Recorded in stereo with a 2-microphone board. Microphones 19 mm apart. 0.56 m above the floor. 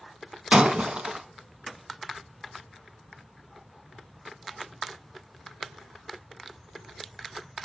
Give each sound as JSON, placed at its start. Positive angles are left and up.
{"t": 0.5, "sound": "breaking glass", "side_deg": -75, "distance_m": 1.6}